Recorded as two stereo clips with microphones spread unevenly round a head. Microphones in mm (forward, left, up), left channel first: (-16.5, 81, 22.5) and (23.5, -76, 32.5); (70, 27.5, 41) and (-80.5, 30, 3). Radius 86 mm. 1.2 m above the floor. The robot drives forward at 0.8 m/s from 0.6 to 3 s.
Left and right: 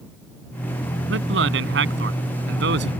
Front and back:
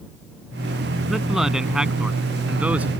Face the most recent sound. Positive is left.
turn(degrees=-100)